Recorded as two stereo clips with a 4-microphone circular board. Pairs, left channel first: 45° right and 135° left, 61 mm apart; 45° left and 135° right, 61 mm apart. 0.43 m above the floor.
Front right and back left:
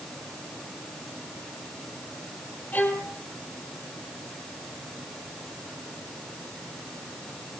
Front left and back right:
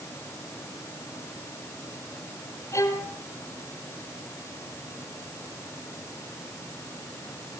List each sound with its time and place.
2.7 s a violin: 20° left, 2.5 m